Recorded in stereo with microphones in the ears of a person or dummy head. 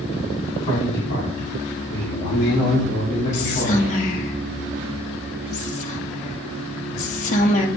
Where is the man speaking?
85° left, 2.5 m; by 4.0 s 65° left (ahead or behind), 4 m.